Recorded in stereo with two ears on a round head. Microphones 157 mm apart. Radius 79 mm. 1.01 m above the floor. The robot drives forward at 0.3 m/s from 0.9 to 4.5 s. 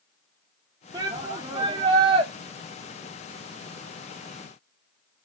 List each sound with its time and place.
0.9 s a shout: 25° right (ahead or behind), 1.3 m; by 2.3 s 30° right (ahead or behind), 1.0 m